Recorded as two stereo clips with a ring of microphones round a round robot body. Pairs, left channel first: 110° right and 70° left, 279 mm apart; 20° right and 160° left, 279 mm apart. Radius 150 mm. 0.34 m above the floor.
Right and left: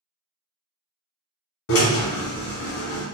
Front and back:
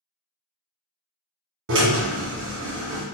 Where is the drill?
155° right, 1.3 m.